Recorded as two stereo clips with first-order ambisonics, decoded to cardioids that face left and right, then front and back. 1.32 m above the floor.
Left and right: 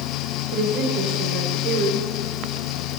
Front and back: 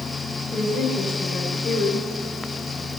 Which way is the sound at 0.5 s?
75° right.